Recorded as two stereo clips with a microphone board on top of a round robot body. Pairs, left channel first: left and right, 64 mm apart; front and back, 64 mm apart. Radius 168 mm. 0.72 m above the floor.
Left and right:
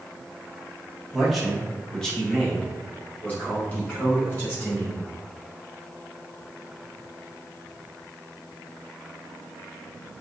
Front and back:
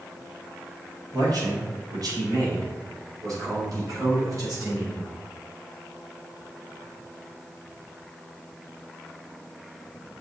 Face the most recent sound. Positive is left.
turn(degrees=145)